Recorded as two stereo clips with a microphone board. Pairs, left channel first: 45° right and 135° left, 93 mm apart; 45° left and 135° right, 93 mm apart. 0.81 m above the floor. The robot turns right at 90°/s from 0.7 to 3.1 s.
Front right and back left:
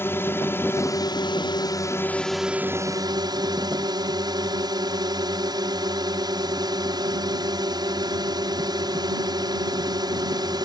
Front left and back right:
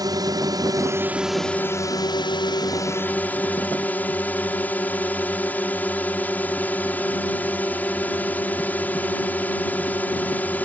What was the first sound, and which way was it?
A drone, 105° right.